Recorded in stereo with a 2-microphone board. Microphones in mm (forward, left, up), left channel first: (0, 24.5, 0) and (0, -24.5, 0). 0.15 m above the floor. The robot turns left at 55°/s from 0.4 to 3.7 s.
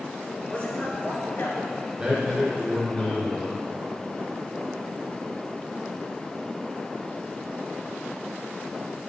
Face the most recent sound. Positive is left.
turn(degrees=115)